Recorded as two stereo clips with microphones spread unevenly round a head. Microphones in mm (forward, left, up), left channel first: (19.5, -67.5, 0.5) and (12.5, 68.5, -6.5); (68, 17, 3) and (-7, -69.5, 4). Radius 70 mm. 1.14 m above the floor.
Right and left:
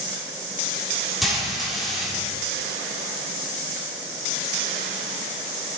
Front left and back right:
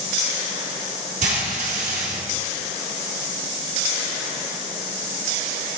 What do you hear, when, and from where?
1.2 s frying: 175° right, 1.9 m